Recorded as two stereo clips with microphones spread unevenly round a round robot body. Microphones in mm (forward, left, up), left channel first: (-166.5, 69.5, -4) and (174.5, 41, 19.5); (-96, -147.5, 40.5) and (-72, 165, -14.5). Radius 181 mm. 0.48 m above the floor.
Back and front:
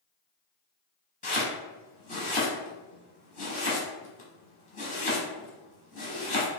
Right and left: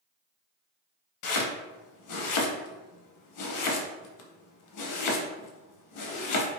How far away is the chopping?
About 0.7 m.